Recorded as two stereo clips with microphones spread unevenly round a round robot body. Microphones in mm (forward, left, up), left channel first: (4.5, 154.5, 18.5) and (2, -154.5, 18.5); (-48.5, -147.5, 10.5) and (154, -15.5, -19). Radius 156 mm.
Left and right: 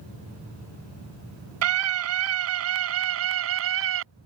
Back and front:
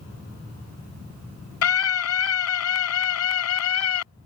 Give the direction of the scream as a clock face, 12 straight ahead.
4 o'clock.